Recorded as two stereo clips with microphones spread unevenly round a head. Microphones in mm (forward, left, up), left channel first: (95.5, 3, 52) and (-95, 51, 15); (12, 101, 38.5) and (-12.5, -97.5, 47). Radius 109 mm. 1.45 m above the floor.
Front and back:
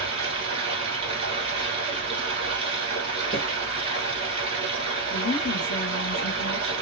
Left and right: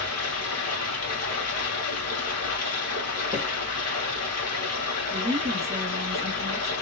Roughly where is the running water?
Left.